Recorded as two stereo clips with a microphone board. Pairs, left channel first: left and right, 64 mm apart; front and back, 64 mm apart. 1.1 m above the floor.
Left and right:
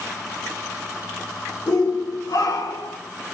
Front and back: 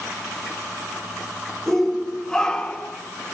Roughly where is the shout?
Left.